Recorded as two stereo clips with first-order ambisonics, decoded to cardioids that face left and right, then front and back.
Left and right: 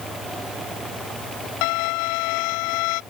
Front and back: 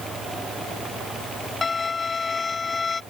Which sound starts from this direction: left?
A violin, at 1.6 s.